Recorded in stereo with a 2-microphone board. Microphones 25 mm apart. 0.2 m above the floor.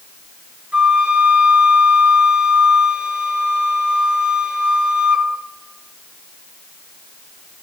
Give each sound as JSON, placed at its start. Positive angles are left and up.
{"t": 0.7, "sound": "a flute", "side_deg": -55, "distance_m": 2.0}